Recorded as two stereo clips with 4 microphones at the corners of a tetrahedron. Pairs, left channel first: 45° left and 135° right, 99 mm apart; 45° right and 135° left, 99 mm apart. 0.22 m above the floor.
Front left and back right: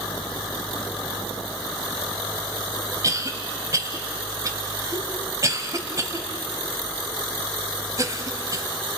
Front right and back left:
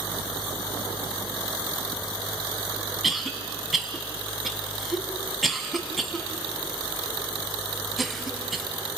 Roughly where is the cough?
Behind right.